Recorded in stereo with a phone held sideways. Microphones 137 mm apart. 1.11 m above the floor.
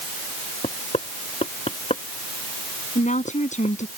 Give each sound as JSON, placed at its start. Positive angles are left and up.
{"t": 0.6, "sound": "knocking", "side_deg": 50}
{"t": 3.0, "sound": "a woman speaking", "side_deg": 60}